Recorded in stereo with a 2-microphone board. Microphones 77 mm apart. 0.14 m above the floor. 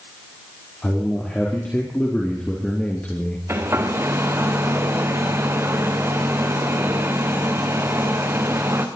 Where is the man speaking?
15° left (ahead or behind), 4 m; by 3.4 s 20° left (ahead or behind), 2 m.